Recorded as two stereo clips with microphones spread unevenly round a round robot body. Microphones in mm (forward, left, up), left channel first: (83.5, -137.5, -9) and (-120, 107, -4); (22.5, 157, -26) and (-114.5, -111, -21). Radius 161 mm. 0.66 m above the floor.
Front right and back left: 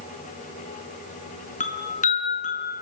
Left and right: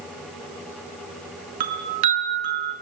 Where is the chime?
120° right, 5 m.